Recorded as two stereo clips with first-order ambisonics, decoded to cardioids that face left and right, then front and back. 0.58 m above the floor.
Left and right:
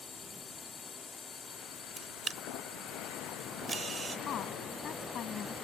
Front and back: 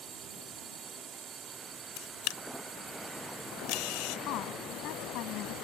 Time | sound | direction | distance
0.0 | a drone | 145° left | ?
2.0 | a camera shutter | 15° right | ?
4.3 | a woman speaking | 35° left | ?